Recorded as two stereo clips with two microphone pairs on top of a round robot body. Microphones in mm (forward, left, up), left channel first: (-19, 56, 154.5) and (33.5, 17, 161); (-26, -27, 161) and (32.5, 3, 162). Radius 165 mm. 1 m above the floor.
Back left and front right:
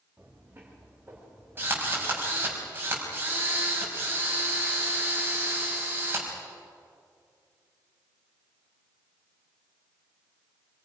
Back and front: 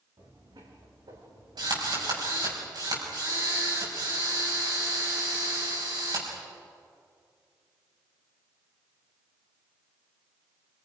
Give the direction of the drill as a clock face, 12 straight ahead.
11 o'clock.